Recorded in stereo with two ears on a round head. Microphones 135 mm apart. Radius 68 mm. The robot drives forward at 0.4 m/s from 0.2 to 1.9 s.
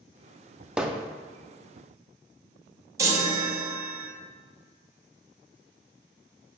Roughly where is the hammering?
Centre.